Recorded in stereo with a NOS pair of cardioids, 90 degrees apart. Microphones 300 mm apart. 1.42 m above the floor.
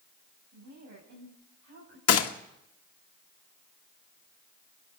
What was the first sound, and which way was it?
A woman speaking, 65° right.